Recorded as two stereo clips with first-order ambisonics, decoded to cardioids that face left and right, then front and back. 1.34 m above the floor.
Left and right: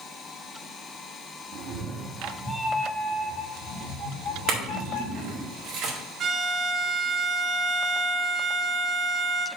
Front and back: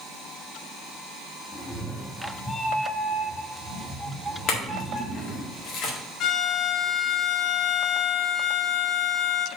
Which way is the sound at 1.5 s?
70° right.